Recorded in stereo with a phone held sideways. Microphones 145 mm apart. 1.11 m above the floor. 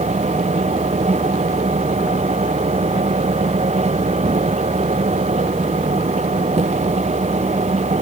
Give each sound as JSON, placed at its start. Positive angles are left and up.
{"t": 0.0, "sound": "a machine running", "side_deg": -55}